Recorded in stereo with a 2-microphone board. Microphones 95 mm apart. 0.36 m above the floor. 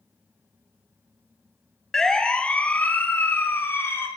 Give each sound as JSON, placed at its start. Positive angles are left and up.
{"t": 1.9, "sound": "a siren", "side_deg": 5, "distance_m": 3.0}